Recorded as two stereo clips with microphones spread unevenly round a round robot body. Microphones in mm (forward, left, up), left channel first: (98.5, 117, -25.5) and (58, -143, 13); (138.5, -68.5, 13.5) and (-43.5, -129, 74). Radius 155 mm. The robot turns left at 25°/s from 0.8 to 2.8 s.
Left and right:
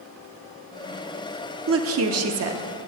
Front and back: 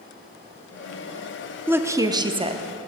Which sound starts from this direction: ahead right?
A woman speaking, at 1.7 s.